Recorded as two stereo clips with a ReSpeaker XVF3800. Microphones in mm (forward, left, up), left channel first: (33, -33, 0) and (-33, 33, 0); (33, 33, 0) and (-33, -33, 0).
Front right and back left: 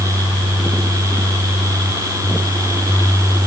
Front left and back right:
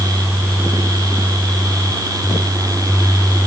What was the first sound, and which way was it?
Only background noise.